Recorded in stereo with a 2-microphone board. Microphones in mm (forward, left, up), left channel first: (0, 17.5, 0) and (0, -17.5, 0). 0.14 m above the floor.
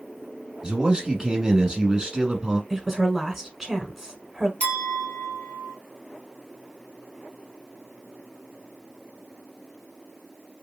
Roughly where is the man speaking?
Right.